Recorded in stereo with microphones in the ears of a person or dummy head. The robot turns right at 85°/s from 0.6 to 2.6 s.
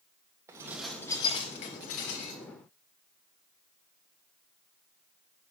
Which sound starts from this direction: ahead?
Dishes clattering, at 0.5 s.